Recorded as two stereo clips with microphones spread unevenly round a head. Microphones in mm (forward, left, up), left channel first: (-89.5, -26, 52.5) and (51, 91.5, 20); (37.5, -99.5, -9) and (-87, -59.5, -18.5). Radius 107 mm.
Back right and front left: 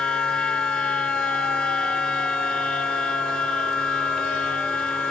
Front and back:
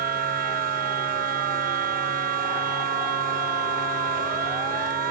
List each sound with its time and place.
0.0 s a machine running: 135° left